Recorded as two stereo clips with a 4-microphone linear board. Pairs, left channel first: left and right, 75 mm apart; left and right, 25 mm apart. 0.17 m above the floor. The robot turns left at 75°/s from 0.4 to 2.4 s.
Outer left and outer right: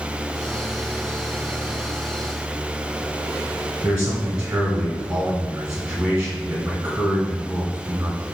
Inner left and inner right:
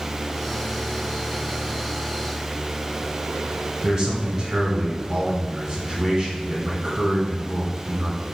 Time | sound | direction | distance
3.8 | a man speaking | 10° right (ahead or behind) | 1.3 m